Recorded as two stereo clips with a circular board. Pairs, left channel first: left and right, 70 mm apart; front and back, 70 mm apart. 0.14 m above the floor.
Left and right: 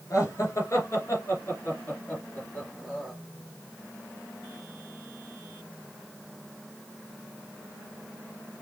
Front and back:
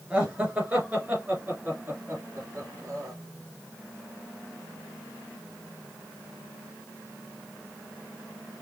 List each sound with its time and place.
0.1 s laughter: 110° left, 3 m; by 3.1 s 165° left, 2.5 m